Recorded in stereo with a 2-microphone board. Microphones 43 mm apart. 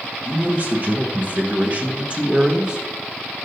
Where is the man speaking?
30° right (ahead or behind), 1.3 m; by 3.5 s 15° right (ahead or behind), 2.0 m.